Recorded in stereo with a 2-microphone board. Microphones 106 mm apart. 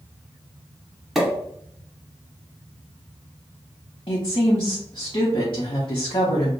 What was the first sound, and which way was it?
A pop, centre (ahead or behind).